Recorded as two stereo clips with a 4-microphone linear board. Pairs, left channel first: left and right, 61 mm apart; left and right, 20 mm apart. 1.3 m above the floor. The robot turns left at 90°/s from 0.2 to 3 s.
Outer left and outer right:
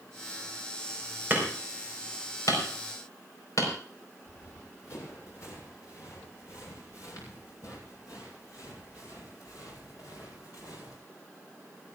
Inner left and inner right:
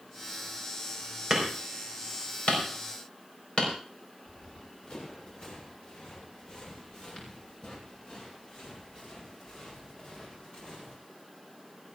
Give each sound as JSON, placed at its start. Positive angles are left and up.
{"t": 1.3, "sound": "hammering", "side_deg": -30, "distance_m": 4.5}
{"t": 4.3, "sound": "running footsteps", "side_deg": 50, "distance_m": 7.0}